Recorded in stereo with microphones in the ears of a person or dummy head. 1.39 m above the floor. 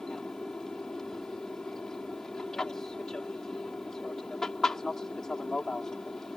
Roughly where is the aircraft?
Centre.